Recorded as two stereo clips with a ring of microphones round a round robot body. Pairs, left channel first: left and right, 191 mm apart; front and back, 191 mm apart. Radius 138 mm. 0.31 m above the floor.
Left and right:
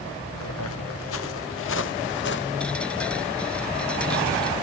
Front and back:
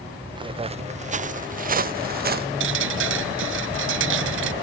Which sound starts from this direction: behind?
Dripping, at 2.6 s.